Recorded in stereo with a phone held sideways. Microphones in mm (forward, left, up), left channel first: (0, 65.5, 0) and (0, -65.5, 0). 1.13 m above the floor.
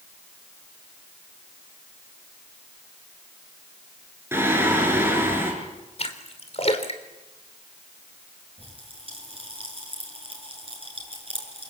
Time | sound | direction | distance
4.3 | singing | 20° right (ahead or behind) | 7 m
6.0 | a splash | 55° left (ahead or behind) | 3 m
8.6 | a pop | 45° right (ahead or behind) | 8 m